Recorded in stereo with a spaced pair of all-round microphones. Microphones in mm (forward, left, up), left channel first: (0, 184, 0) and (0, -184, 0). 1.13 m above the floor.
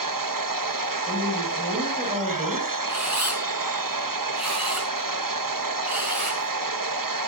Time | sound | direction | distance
0.0 | a machine running | 60° right (ahead or behind) | 1.2 m
1.1 | a woman speaking | 10° right (ahead or behind) | 6.5 m
2.9 | a camera shutter | 45° right (ahead or behind) | 5 m